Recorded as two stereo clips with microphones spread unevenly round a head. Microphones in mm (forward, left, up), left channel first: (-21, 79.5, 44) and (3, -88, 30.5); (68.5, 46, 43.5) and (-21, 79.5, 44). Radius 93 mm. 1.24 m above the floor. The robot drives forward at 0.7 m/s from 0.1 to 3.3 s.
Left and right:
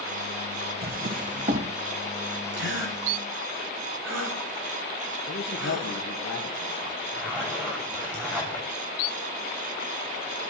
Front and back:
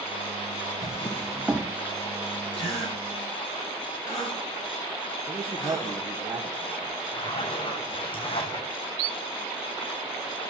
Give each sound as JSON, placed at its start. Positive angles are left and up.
{"t": 0.8, "sound": "a drawer", "azimuth_deg": -70, "distance_m": 0.8}
{"t": 2.5, "sound": "a gasp", "azimuth_deg": -65, "distance_m": 3.5}
{"t": 5.3, "sound": "a man speaking", "azimuth_deg": 115, "distance_m": 1.5}
{"t": 7.1, "sound": "a zipper", "azimuth_deg": 0, "distance_m": 6.5}